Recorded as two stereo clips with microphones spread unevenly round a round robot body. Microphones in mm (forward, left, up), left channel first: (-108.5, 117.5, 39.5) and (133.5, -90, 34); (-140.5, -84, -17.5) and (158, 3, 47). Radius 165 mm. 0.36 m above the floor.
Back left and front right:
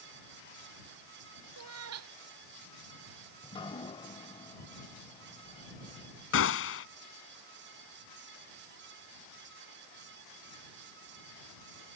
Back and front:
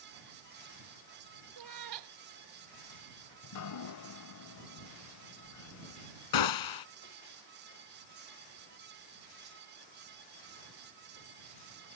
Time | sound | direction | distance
1.6 | a cat meowing | 5° left | ?
3.4 | dripping | 145° right | ?
6.3 | a gunshot | 170° right | ?